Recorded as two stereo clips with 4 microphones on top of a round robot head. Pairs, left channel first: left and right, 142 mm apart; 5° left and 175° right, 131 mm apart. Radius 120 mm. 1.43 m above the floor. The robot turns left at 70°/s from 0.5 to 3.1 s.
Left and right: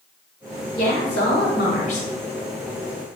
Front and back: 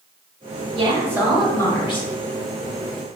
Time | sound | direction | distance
0.8 | a woman speaking | 140° left | 0.9 m